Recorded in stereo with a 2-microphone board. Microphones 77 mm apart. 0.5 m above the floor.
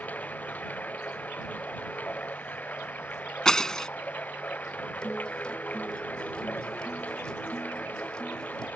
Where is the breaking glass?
10° left (ahead or behind).